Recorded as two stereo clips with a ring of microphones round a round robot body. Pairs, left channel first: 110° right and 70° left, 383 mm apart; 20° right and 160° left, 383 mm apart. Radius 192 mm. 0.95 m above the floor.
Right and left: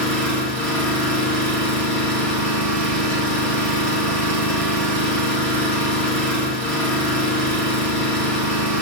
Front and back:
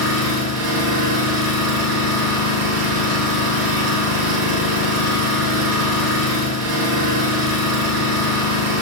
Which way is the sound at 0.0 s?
160° left.